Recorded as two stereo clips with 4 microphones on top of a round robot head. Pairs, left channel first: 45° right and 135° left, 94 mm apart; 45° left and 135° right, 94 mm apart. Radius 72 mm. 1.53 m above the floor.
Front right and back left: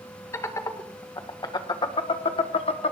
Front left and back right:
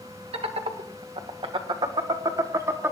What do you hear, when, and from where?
0.3 s laughter: 105° right, 2 m; by 2.9 s 65° right, 1.4 m